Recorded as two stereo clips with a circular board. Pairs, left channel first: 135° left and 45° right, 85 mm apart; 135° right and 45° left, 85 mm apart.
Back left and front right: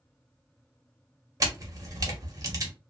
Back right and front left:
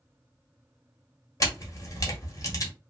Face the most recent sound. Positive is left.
turn(degrees=-90)